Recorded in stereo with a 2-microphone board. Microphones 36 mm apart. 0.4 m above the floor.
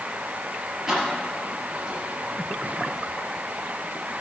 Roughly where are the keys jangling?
Centre.